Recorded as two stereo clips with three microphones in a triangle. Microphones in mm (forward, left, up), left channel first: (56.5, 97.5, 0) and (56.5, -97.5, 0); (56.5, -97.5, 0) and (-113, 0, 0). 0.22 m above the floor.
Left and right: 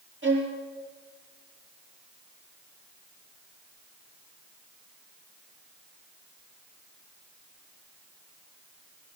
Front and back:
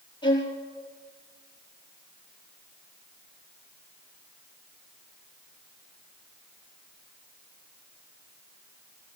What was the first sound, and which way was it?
A violin, 100° right.